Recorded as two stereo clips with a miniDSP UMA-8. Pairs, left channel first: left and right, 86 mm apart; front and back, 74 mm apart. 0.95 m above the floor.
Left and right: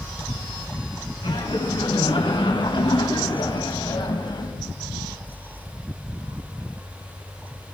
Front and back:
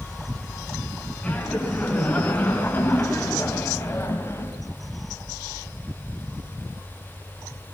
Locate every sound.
1.2 s laughter: 70° left, 10 m; by 4.6 s 55° left, 6.5 m